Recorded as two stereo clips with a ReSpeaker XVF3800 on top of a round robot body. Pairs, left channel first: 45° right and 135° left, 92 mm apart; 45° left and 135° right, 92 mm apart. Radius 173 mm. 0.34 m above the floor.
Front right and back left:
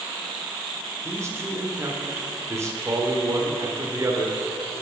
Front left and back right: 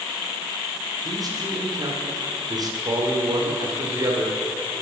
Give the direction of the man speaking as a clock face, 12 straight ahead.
6 o'clock.